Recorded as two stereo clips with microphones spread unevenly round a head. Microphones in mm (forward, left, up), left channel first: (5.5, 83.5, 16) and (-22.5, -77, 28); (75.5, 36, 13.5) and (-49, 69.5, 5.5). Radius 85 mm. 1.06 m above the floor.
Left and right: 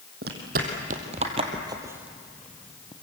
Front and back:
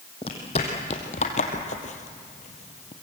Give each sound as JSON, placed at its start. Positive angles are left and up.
{"t": 0.2, "sound": "footsteps", "azimuth_deg": -70, "distance_m": 3.0}